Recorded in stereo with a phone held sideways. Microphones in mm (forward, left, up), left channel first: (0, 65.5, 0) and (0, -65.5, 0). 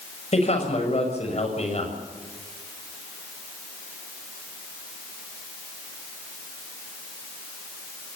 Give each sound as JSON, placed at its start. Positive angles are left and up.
{"t": 0.3, "sound": "a man speaking", "side_deg": 55, "distance_m": 6.5}